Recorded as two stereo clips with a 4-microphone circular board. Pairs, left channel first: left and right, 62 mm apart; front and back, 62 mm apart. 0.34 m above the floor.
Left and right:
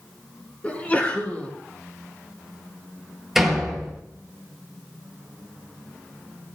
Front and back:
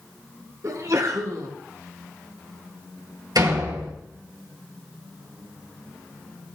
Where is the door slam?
175° right, 4.5 m.